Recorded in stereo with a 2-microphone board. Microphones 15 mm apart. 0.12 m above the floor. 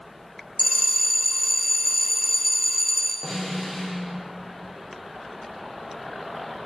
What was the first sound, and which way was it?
A bell, 25° left (ahead or behind).